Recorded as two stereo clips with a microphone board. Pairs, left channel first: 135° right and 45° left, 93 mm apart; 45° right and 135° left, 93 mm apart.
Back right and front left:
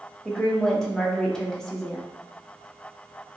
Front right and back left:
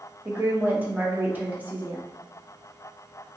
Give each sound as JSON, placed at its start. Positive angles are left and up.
{"t": 0.2, "sound": "a woman speaking", "azimuth_deg": 155, "distance_m": 0.6}